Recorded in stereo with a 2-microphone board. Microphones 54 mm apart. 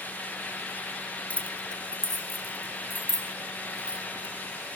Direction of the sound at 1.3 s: 30° left (ahead or behind).